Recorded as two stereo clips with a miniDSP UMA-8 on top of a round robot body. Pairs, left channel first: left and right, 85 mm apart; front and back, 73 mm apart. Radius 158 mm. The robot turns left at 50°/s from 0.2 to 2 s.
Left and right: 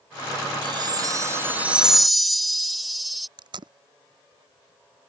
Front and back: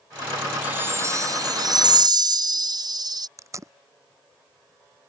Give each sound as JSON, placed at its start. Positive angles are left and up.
{"t": 0.6, "sound": "a chime", "azimuth_deg": -110}
{"t": 3.4, "sound": "tape being pulled", "azimuth_deg": -130}